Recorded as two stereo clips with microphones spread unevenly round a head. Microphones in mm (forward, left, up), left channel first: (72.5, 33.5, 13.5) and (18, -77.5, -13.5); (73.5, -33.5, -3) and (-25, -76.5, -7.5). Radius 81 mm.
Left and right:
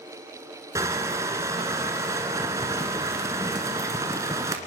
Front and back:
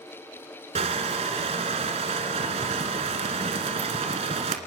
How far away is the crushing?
About 1.7 m.